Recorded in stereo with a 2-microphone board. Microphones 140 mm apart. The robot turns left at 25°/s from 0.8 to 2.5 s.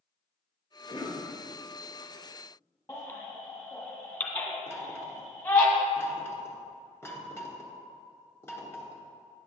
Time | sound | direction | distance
0.9 | a cough | 30° left (ahead or behind) | 2 m
2.9 | a baby crying | 20° left (ahead or behind) | 1.5 m
4.7 | knocking | 20° left (ahead or behind) | 1.1 m